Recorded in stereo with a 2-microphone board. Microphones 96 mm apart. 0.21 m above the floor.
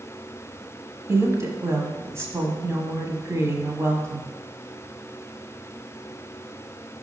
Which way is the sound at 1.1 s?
30° right (ahead or behind).